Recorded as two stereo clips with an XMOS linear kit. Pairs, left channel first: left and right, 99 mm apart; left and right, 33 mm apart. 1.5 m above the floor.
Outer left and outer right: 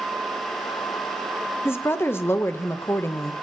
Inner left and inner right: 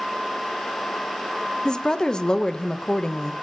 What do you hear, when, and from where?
1.6 s a woman speaking: 25° left (ahead or behind), 0.6 m